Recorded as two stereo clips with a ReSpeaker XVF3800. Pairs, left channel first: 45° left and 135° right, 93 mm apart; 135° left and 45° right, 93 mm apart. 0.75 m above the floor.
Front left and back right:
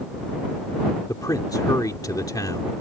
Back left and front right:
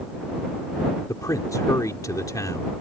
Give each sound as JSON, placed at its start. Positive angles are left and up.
{"t": 1.1, "sound": "a man speaking", "azimuth_deg": 90}